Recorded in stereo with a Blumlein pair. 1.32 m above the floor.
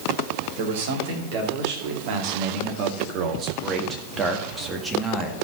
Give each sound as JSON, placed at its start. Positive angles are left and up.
{"t": 0.6, "sound": "a man speaking", "azimuth_deg": -55, "distance_m": 3.0}